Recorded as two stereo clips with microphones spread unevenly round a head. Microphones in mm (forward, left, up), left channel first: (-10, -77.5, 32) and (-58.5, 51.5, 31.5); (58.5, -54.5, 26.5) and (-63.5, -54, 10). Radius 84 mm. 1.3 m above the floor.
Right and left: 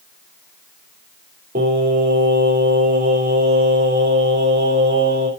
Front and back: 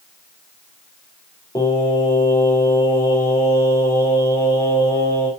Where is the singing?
70° left, 4.5 m.